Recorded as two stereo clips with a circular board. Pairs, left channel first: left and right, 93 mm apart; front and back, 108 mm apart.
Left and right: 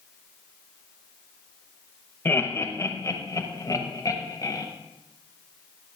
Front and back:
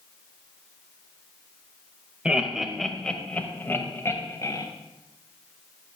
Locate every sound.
2.2 s laughter: 115° left, 1.1 m; by 4.7 s 50° left, 1.7 m